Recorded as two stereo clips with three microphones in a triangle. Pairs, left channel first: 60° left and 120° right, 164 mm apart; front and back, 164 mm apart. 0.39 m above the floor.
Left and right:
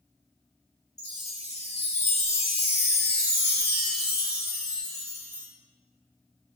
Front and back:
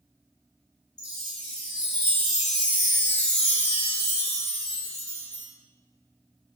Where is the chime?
50° left, 0.9 m.